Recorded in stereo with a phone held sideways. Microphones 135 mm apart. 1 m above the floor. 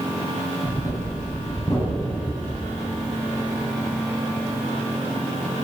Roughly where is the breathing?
Left.